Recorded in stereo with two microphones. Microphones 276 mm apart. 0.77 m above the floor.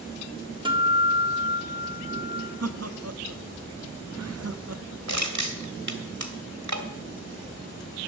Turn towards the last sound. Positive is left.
turn(degrees=-80)